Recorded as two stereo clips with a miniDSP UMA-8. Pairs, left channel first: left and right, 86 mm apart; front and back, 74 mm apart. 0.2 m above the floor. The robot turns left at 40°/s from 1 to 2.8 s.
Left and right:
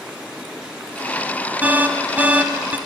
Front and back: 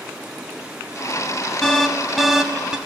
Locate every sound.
1.6 s an alarm: 70° right, 1.0 m; by 2.8 s 115° right, 1.0 m